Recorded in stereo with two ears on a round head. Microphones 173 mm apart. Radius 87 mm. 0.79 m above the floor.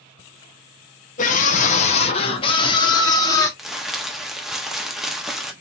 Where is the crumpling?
Centre (ahead or behind), 0.8 m.